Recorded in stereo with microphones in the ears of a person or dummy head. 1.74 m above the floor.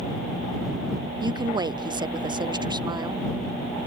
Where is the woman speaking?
25° right (ahead or behind).